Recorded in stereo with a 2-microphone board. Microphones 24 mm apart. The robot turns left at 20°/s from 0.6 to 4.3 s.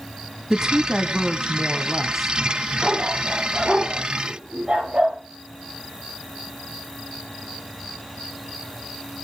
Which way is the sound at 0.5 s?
140° right.